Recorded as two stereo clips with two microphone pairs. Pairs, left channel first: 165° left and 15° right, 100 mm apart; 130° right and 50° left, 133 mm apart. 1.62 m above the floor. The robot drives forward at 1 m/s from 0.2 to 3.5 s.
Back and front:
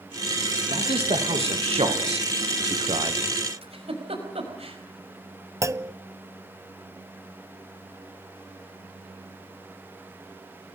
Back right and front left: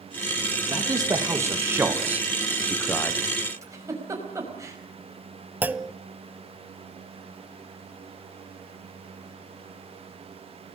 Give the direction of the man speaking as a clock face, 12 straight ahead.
1 o'clock.